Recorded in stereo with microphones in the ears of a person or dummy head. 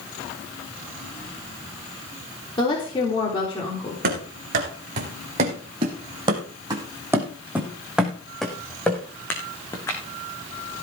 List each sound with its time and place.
2.6 s a woman speaking: 25° left (ahead or behind), 4 m
4.0 s running footsteps: 50° right (ahead or behind), 4 m; by 10.0 s 15° left (ahead or behind), 4.5 m